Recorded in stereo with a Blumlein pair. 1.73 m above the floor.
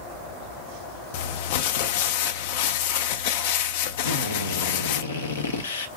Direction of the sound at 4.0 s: 65° left.